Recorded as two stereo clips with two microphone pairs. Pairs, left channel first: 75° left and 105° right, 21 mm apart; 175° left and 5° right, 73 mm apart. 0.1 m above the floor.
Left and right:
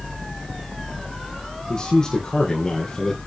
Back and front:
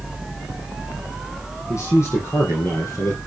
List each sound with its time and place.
1.7 s a man speaking: 130° left, 4.5 m